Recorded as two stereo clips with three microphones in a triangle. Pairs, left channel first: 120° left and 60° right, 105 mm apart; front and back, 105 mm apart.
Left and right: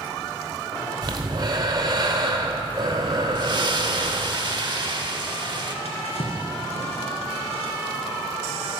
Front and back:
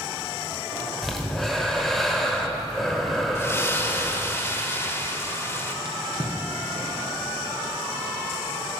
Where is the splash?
50° right, 0.7 m.